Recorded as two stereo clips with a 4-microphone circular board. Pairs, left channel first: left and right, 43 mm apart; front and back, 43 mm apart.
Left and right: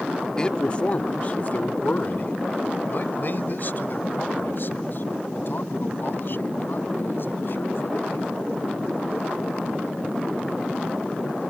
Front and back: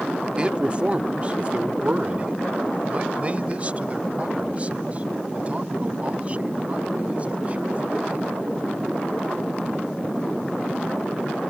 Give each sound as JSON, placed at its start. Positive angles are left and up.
{"t": 0.4, "sound": "a man speaking", "azimuth_deg": 140}